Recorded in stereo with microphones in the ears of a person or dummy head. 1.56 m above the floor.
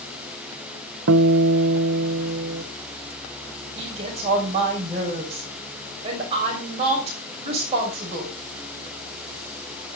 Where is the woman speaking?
35° right (ahead or behind), 6.5 m.